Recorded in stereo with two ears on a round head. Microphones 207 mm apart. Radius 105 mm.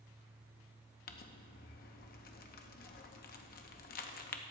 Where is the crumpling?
40° left (ahead or behind), 0.7 m.